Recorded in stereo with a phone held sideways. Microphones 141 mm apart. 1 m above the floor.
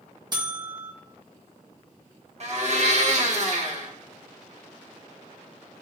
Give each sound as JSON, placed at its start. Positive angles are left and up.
{"t": 0.3, "sound": "a buzzer", "side_deg": -30, "distance_m": 0.9}
{"t": 2.4, "sound": "a blender", "side_deg": -50, "distance_m": 1.0}